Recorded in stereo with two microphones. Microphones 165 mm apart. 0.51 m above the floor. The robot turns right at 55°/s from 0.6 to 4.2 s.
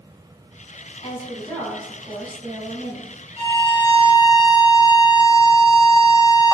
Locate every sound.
1.0 s a woman speaking: 140° left, 2.5 m; by 3.1 s 105° right, 2.5 m
3.4 s a violin: 115° right, 1.9 m; by 6.5 s 70° right, 1.9 m